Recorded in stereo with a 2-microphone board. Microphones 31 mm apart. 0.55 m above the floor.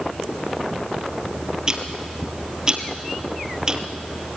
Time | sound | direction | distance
1.7 | ticking | 25° right (ahead or behind) | 1.9 m